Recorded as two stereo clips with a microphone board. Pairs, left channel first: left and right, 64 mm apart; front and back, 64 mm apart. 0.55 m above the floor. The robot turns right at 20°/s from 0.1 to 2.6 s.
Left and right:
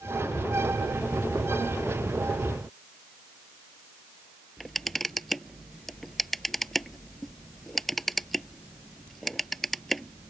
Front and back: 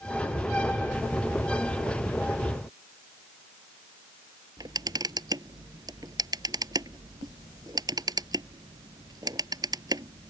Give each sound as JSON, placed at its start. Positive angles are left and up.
{"t": 4.6, "sound": "a camera shutter", "azimuth_deg": 175}